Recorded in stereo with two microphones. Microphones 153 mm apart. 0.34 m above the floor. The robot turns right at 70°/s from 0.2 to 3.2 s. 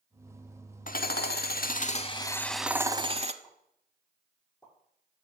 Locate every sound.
0.9 s hammering: 60° left, 0.6 m; by 3.3 s 135° right, 0.6 m
3.4 s a pop: 5° left (ahead or behind), 6.5 m